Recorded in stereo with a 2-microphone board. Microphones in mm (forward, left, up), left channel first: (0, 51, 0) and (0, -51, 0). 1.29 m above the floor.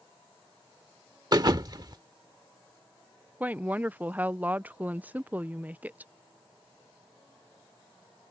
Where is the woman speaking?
15° right (ahead or behind).